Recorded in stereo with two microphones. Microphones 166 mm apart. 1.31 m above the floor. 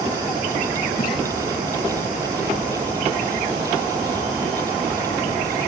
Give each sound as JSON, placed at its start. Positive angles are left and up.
{"t": 1.0, "sound": "a splash", "side_deg": 70, "distance_m": 6.5}